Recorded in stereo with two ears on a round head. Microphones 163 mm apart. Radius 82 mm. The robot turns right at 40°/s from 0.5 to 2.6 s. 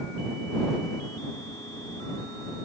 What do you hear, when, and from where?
Only background noise.